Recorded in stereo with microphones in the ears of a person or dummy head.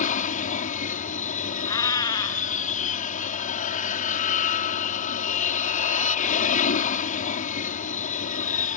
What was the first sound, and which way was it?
An aircraft, 40° left (ahead or behind).